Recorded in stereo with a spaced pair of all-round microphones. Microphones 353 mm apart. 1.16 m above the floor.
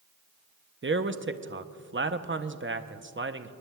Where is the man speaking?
35° right (ahead or behind), 0.6 m.